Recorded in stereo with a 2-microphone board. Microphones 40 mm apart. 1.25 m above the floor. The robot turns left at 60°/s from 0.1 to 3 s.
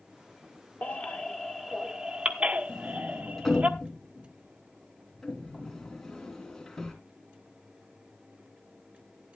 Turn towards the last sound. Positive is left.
turn(degrees=5)  # may be behind; listen again after turning